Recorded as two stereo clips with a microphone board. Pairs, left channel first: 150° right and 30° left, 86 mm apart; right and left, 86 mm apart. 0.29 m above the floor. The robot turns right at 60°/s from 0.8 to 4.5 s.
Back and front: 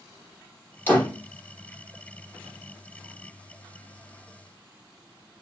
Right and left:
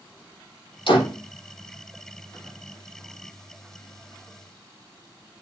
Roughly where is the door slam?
Right.